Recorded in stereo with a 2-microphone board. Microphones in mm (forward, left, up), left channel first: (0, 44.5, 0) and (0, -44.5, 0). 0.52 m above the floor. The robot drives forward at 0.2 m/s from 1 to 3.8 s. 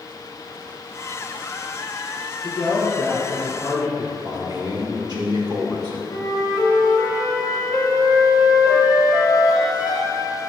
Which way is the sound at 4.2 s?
45° right (ahead or behind).